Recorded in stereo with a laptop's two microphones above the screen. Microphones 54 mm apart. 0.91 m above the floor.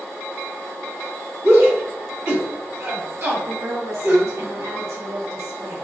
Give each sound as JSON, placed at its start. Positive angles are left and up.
{"t": 1.4, "sound": "a shout", "side_deg": -50, "distance_m": 1.7}
{"t": 3.5, "sound": "a woman speaking", "side_deg": -65, "distance_m": 1.4}